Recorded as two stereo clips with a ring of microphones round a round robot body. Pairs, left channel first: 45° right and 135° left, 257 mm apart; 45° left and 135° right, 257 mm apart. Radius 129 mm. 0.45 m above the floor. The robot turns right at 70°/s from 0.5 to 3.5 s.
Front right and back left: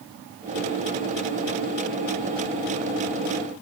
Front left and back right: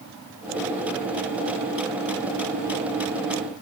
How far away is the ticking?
I don't hear ticking.